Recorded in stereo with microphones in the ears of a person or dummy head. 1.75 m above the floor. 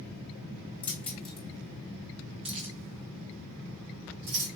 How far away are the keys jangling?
About 1.3 m.